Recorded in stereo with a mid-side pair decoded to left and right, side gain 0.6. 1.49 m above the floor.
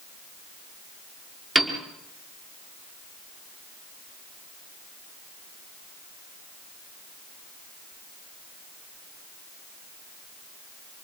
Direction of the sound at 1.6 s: 20° right.